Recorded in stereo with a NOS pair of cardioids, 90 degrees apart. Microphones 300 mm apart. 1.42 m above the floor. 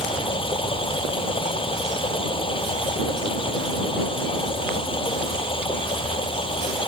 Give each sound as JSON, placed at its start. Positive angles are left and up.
{"t": 0.0, "sound": "running water", "azimuth_deg": 15}